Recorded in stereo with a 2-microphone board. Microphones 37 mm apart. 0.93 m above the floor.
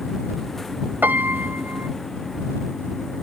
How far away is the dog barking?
I don't hear a dog barking.